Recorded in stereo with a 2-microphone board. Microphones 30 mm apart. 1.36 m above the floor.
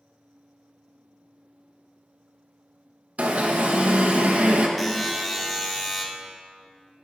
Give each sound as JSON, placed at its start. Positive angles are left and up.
{"t": 3.2, "sound": "an alarm", "side_deg": -65, "distance_m": 0.9}
{"t": 4.8, "sound": "a buzzer", "side_deg": 5, "distance_m": 1.2}